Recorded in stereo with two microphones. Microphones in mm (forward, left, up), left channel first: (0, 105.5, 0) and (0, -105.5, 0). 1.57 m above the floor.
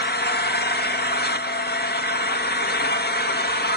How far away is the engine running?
About 1.3 m.